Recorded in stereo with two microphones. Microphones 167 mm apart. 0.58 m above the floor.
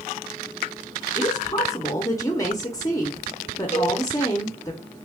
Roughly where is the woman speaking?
Left.